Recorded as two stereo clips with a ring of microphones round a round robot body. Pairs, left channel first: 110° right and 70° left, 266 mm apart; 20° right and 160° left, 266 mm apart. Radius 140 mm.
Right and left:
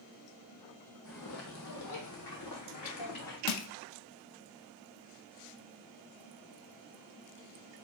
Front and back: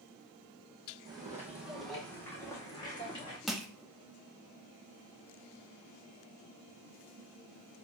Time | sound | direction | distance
1.1 | footsteps | 135° right | 1.2 m
3.5 | crushing | 115° right | 0.6 m